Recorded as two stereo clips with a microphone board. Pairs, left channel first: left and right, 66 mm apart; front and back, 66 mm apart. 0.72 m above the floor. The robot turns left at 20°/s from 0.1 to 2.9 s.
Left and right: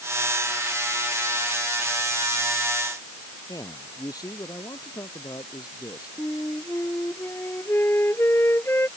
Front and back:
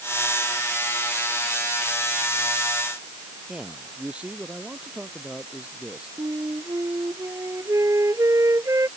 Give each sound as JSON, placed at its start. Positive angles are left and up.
{"t": 3.5, "sound": "a man speaking", "azimuth_deg": 110}
{"t": 6.2, "sound": "a flute", "azimuth_deg": 145}